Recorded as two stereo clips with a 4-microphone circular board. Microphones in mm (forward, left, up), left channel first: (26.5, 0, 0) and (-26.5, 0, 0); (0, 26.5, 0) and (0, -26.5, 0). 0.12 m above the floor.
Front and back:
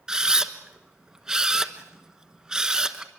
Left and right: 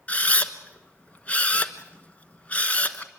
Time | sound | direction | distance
0.1 | a camera shutter | 115° left | 1.2 m